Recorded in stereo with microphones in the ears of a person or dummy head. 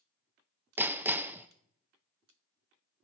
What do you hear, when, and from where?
0.8 s hammering: 10° right (ahead or behind), 0.6 m